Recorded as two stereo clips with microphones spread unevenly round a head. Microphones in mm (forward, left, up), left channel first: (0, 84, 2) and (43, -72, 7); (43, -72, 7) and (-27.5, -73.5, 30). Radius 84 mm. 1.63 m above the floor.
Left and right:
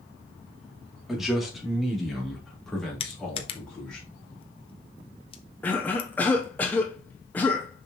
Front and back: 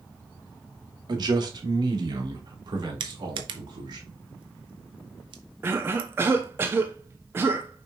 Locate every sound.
1.1 s a man speaking: 165° right, 2.5 m; by 4.0 s 170° right, 4 m
3.0 s crushing: 165° left, 0.8 m
5.6 s a cough: 175° right, 0.6 m